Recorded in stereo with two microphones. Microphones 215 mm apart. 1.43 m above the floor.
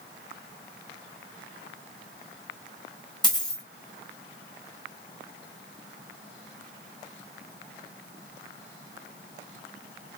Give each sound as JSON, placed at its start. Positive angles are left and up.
{"t": 3.2, "sound": "a dropped coin", "side_deg": 20, "distance_m": 2.0}